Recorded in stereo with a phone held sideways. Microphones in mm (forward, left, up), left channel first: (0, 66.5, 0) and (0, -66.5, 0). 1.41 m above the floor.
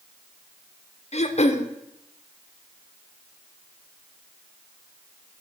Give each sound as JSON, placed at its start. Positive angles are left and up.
{"t": 1.1, "sound": "throat clearing", "side_deg": 55, "distance_m": 0.6}